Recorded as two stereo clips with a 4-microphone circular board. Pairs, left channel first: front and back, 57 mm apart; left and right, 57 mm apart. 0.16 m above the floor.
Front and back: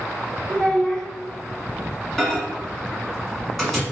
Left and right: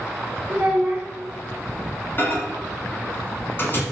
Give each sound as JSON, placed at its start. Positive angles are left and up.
{"t": 0.5, "sound": "a child speaking", "azimuth_deg": -70, "distance_m": 0.9}
{"t": 2.2, "sound": "a microwave", "azimuth_deg": 85, "distance_m": 1.3}